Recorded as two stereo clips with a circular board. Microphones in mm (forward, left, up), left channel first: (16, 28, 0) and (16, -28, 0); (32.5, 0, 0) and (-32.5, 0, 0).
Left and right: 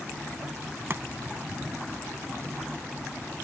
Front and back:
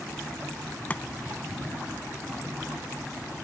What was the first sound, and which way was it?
Chopping, 60° right.